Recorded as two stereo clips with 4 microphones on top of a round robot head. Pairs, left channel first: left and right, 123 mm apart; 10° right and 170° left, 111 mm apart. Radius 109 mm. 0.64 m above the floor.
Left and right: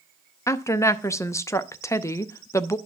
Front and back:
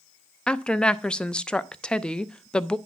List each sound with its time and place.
0.5 s a woman speaking: 65° left, 0.7 m